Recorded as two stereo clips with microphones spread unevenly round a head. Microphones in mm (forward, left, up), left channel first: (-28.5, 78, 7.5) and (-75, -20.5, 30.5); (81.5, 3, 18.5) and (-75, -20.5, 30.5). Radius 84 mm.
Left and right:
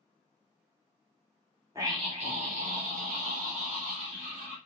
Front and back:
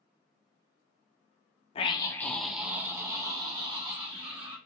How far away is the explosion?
I don't hear an explosion.